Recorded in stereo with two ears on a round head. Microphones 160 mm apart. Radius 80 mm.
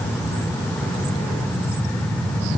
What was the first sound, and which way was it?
Only background noise.